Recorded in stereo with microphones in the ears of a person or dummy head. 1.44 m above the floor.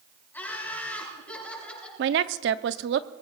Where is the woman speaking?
60° right (ahead or behind), 0.7 m.